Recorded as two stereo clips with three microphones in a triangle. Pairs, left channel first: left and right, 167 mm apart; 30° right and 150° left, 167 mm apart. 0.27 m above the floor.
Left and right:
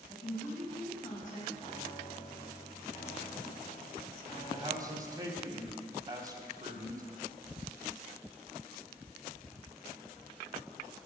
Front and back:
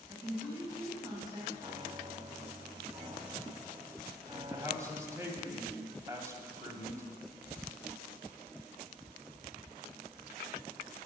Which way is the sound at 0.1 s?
90° left.